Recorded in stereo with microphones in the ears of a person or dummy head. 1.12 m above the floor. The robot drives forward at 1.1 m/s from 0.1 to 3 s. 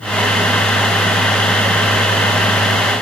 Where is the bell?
I don't hear a bell.